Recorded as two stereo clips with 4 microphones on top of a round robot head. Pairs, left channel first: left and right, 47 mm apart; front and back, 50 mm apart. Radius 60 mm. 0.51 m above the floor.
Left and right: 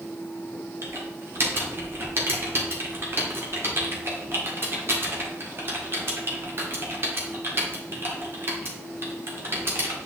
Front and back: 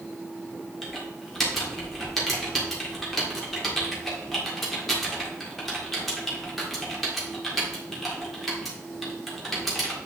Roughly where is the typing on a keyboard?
Right.